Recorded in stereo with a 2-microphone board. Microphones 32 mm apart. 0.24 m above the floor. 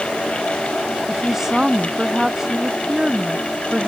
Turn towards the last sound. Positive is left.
turn(degrees=-10)  # may be behind; listen again after turning